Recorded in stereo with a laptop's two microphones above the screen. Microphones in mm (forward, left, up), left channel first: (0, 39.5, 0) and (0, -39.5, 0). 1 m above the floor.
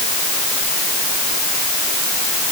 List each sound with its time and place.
Only background noise.